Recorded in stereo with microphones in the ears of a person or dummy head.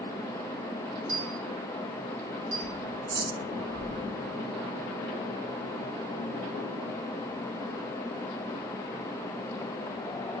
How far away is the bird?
About 1.5 m.